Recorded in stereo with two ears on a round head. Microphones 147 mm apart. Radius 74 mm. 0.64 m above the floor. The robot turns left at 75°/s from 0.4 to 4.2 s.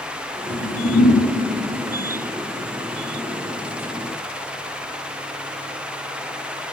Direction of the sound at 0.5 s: 100° left.